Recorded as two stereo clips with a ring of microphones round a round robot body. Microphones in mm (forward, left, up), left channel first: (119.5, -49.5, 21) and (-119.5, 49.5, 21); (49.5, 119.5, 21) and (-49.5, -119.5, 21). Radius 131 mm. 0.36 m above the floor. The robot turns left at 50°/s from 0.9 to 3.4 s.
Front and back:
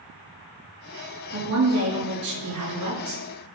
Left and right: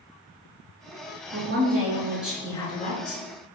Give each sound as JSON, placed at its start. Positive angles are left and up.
{"t": 1.3, "sound": "a woman speaking", "azimuth_deg": -155, "distance_m": 4.5}